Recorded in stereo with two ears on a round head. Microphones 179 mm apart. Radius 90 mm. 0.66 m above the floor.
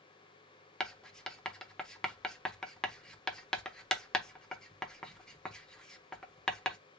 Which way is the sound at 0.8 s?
5° left (ahead or behind).